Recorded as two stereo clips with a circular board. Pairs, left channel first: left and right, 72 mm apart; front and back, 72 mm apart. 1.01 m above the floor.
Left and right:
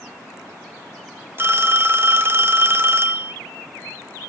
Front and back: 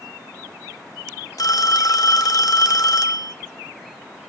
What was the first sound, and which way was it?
A phone ringing, 35° right.